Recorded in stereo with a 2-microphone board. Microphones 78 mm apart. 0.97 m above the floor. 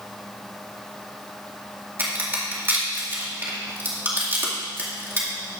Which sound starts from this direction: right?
A crack, at 2.0 s.